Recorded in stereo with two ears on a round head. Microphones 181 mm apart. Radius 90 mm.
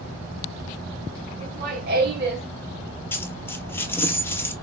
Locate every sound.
1.4 s laughter: 45° right (ahead or behind), 1.9 m; by 2.5 s 55° right (ahead or behind), 1.5 m
3.1 s a dropped coin: 10° left (ahead or behind), 0.5 m